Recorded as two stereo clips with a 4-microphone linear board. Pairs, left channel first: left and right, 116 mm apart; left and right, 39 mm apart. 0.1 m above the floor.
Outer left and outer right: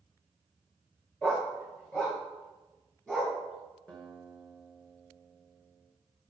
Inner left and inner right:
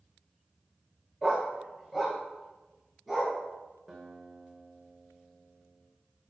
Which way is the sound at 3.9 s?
10° left (ahead or behind).